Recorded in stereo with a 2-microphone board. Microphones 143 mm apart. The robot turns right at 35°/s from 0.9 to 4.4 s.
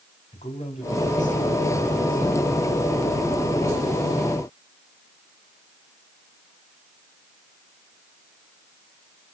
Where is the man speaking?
55° left, 3 m; by 2.4 s 110° left, 3 m.